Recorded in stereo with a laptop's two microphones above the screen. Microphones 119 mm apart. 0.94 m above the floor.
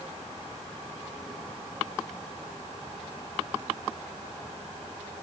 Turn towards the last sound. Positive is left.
No sound to turn to.